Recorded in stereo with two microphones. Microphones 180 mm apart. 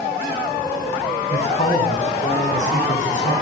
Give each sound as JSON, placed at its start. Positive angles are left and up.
{"t": 1.3, "sound": "a man speaking", "side_deg": 40, "distance_m": 8.5}